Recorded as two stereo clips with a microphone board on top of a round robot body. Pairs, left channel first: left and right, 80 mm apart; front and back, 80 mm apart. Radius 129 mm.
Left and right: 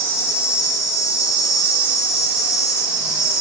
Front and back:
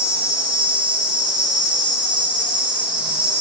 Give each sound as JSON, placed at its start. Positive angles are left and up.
{"t": 0.0, "sound": "an insect", "azimuth_deg": 105, "distance_m": 0.9}